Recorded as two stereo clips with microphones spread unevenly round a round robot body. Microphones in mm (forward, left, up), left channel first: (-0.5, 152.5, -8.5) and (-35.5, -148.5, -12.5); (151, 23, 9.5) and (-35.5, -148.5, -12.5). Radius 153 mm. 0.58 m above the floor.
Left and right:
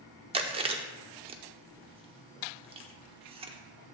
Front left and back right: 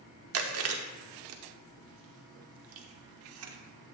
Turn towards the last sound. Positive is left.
turn(degrees=-170)